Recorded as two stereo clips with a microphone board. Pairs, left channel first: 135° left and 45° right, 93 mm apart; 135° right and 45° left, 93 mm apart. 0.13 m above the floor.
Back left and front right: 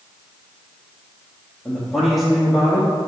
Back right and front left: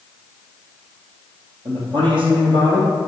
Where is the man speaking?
40° left, 3 m.